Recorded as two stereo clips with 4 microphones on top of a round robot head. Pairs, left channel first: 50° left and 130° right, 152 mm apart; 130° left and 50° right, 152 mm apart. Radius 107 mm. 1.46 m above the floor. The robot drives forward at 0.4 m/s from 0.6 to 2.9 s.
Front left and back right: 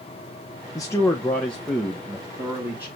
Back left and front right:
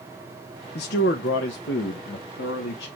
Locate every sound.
0.8 s a man speaking: 115° left, 0.8 m; by 2.9 s 150° left, 1.4 m